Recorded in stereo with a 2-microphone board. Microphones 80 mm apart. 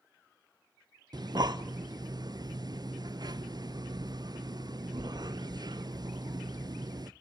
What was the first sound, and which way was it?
Breathing, 55° right (ahead or behind).